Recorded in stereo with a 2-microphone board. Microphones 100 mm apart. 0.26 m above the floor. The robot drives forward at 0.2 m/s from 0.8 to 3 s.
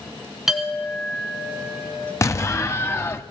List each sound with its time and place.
0.5 s a clink: 5° right (ahead or behind), 1.7 m
2.2 s an explosion: 30° left (ahead or behind), 0.6 m; by 3.2 s 25° left (ahead or behind), 0.7 m